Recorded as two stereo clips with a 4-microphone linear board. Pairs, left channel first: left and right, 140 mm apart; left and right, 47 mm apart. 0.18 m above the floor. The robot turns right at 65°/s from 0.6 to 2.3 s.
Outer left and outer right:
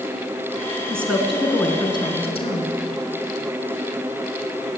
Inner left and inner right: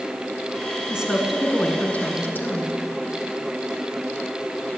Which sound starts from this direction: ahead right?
A woman speaking, at 0.9 s.